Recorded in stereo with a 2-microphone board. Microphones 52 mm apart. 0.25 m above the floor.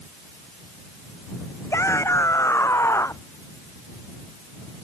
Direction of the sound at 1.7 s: 65° left (ahead or behind).